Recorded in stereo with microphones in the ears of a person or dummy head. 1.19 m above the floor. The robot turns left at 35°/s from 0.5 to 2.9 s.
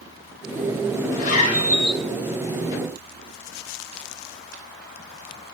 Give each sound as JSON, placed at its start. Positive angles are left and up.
{"t": 1.1, "sound": "a zipper", "side_deg": 50, "distance_m": 4.0}